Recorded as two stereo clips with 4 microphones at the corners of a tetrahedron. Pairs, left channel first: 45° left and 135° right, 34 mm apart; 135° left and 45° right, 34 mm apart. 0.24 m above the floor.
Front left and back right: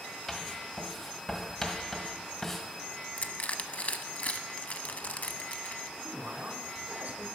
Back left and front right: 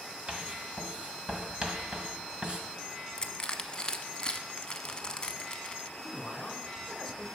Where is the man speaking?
145° right, 2.5 m.